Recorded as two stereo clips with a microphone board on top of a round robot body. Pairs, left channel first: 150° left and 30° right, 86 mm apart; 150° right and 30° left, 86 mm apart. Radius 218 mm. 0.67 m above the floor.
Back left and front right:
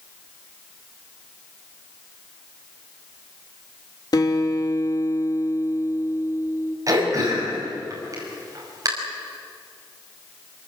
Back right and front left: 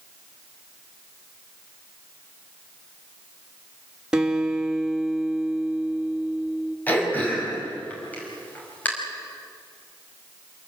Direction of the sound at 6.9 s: 80° right.